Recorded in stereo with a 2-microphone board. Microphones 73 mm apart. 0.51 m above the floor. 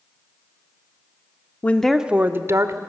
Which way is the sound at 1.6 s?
25° left (ahead or behind).